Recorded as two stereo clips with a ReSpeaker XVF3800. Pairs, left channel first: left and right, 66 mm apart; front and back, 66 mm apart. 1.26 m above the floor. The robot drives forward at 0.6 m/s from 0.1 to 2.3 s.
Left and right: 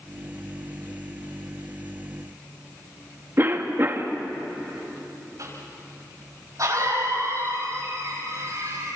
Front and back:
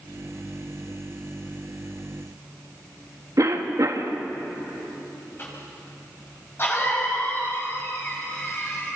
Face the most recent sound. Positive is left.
turn(degrees=-55)